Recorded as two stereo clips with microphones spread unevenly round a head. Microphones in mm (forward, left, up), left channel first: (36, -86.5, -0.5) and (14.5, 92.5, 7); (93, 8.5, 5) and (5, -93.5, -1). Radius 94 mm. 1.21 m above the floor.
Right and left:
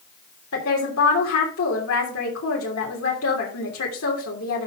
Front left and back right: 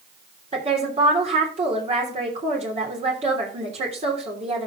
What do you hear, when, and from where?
0.5 s a woman speaking: 90° right, 3 m